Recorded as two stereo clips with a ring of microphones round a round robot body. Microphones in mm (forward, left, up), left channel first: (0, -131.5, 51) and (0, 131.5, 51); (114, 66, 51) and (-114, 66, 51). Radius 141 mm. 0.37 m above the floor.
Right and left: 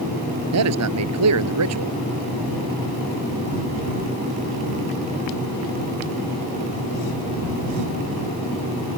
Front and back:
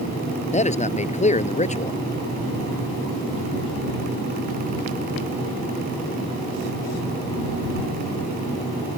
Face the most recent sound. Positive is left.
turn(degrees=60)